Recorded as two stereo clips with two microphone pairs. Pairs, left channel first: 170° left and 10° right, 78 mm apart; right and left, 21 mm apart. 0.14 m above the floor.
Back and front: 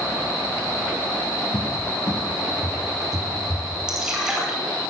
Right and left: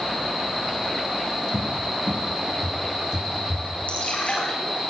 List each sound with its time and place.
1.5 s a cupboard door: 125° left, 3.5 m
3.9 s dripping: 95° right, 9.5 m